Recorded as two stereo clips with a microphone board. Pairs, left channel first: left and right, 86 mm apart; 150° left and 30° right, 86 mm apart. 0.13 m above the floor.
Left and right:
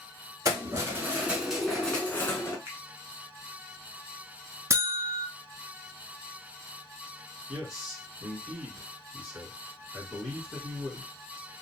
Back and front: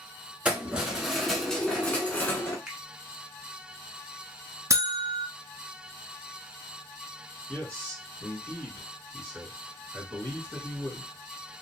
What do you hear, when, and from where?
0.5 s keys jangling: 100° right, 1.1 m; by 2.6 s 110° left, 1.0 m
2.7 s a finger snap: 105° right, 0.9 m
4.7 s a buzzer: 55° right, 0.6 m
7.5 s a man speaking: 170° right, 1.6 m